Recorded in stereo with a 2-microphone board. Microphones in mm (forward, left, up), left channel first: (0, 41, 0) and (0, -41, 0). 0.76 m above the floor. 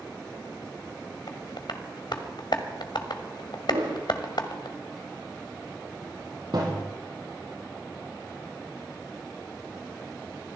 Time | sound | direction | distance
1.3 | tapping | 65° left (ahead or behind) | 1.5 m
3.7 | a whoosh | 80° right | 10 m
6.5 | a thud | 65° right (ahead or behind) | 7.5 m